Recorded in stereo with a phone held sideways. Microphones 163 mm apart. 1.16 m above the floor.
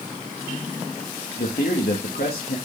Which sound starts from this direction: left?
A man speaking, at 1.4 s.